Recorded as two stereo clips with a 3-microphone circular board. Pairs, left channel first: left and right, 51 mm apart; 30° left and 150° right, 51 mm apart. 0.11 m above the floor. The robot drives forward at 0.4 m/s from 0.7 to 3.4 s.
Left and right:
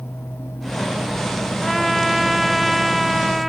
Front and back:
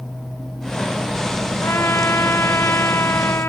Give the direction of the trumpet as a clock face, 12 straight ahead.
12 o'clock.